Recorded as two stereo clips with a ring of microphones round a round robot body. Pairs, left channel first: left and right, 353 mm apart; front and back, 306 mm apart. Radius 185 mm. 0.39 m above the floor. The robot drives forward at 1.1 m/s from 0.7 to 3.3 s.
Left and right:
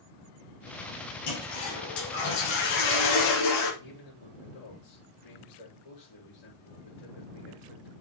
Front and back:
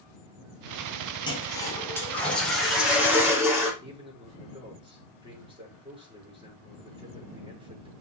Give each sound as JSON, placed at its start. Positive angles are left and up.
{"t": 1.3, "sound": "a toilet flushing", "azimuth_deg": 75, "distance_m": 5.5}
{"t": 3.8, "sound": "a man speaking", "azimuth_deg": 105, "distance_m": 7.0}